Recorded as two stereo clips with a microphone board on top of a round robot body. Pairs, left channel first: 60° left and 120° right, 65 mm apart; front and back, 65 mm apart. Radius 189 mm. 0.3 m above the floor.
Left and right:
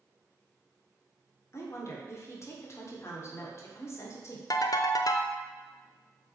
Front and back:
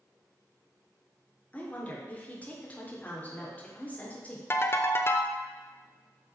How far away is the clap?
I don't hear a clap.